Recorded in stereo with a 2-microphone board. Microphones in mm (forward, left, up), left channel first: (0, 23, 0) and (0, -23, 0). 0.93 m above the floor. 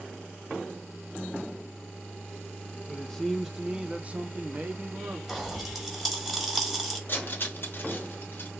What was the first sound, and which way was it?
A man speaking, 15° left (ahead or behind).